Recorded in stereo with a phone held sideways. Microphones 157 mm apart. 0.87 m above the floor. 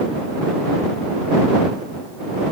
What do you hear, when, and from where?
Only background noise.